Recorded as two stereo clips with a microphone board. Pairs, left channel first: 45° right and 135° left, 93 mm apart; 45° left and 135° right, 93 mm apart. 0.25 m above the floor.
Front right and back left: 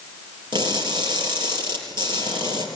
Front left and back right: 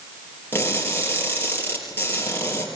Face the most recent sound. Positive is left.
turn(degrees=110)